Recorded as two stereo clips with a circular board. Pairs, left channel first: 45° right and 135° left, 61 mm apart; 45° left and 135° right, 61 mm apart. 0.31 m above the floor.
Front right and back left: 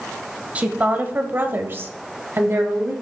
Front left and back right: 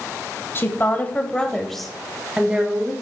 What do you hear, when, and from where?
0.6 s a woman speaking: 75° left, 1.7 m; by 2.9 s 170° left, 1.9 m